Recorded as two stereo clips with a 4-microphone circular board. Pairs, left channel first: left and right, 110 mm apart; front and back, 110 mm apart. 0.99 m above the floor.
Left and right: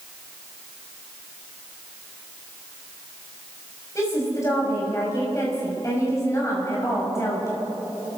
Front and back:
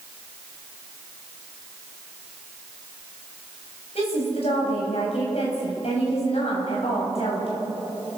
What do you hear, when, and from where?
4.0 s a woman speaking: 30° left, 7 m